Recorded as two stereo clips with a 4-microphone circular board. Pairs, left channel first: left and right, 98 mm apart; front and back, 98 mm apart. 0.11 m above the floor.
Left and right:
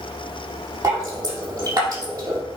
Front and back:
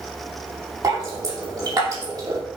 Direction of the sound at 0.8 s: 140° right.